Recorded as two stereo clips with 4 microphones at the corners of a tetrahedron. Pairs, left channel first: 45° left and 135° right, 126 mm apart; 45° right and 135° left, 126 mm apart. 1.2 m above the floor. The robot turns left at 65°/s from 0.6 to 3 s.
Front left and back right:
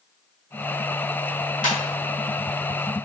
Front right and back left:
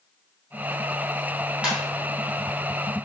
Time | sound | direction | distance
1.6 | a ringtone | 55° left | 2 m